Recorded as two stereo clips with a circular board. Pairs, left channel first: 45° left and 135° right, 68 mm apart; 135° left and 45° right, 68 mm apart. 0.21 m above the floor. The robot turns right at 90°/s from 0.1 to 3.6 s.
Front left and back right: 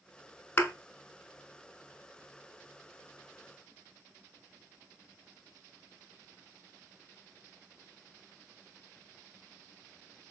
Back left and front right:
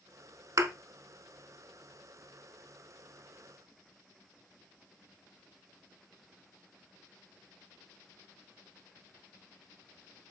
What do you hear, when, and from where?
0.6 s a thud: 10° right, 0.7 m; by 0.7 s straight ahead, 0.7 m